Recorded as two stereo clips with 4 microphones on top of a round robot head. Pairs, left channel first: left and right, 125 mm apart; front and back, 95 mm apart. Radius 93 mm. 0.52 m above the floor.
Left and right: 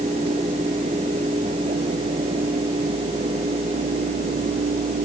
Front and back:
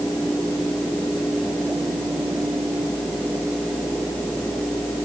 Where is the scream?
I don't hear a scream.